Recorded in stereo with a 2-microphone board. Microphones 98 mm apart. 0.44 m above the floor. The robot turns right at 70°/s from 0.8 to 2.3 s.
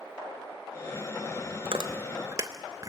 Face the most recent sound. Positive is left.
turn(degrees=-35)  # may be behind; listen again after turning